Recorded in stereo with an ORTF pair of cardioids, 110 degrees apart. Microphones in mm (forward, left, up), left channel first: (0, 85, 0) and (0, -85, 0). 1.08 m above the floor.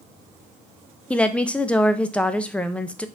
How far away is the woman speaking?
About 0.5 m.